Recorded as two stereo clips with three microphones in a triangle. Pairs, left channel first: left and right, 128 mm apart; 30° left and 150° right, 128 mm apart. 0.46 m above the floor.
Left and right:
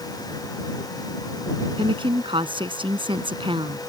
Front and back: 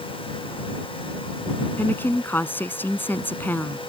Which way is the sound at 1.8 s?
45° right.